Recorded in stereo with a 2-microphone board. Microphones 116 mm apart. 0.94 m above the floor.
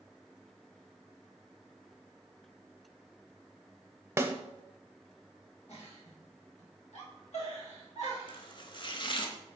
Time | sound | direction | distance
4.2 | a snare drum | 20° right (ahead or behind) | 0.7 m
5.7 | a giggle | 65° left (ahead or behind) | 2.5 m
8.3 | chopping | 45° left (ahead or behind) | 0.9 m